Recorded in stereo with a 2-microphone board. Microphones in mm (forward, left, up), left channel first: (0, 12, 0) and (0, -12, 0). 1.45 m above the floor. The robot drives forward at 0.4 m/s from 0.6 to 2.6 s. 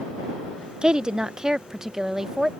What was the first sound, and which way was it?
A woman speaking, 35° right (ahead or behind).